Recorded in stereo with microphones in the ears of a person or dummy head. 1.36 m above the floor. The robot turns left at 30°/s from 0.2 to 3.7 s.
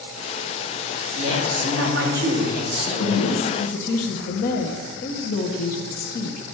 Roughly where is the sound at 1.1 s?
Right.